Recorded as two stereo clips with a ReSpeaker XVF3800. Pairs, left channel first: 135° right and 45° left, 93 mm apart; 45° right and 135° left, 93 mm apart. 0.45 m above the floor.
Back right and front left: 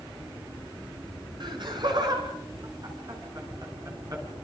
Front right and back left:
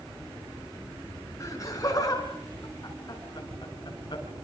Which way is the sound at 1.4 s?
10° left.